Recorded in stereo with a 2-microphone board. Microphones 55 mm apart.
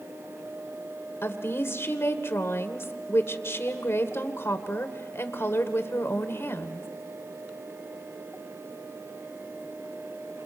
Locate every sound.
1.2 s a woman speaking: 50° left (ahead or behind), 1.9 m